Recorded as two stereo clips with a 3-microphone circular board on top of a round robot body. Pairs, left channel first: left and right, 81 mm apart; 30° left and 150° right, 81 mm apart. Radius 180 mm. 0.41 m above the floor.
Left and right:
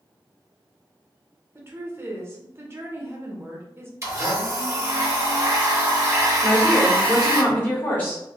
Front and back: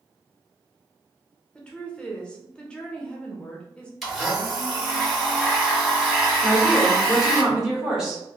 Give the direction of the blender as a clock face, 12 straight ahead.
2 o'clock.